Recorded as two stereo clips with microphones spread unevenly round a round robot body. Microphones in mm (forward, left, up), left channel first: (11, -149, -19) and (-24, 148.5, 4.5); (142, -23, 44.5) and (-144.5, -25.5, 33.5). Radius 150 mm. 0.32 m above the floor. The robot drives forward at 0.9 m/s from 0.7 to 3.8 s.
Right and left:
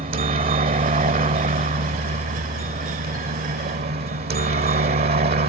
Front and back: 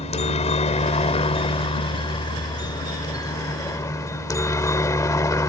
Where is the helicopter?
55° left; by 5.5 s 70° left.